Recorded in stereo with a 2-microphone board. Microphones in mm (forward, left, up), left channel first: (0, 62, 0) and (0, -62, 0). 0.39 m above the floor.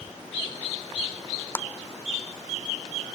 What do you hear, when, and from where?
1.6 s a clap: 15° left (ahead or behind), 0.8 m